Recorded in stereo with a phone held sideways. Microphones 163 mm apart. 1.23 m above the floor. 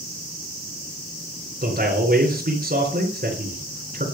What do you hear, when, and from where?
1.6 s a man speaking: 60° right (ahead or behind), 4 m